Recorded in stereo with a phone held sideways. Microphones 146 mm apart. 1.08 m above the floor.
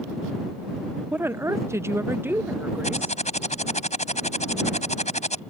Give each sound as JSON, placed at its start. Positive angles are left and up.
{"t": 1.1, "sound": "a woman speaking", "side_deg": -10}
{"t": 2.8, "sound": "typing on a keyboard", "side_deg": 55}